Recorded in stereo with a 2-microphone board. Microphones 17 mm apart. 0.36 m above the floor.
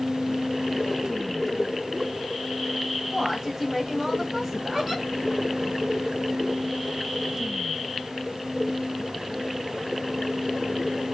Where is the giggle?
5° right (ahead or behind), 2.5 m.